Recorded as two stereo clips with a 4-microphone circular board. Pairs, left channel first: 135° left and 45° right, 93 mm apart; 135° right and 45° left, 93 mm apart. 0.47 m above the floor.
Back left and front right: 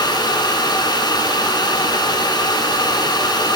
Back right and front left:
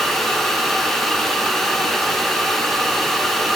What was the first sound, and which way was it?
Only background noise.